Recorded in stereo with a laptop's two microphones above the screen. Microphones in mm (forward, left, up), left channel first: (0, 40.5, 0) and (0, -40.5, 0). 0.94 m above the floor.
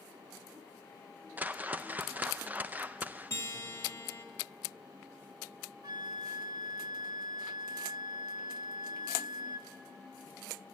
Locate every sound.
1.4 s a whoosh: 20° right (ahead or behind), 0.6 m
3.3 s a guitar: 35° left (ahead or behind), 2.5 m
5.8 s a flute: 60° right (ahead or behind), 1.1 m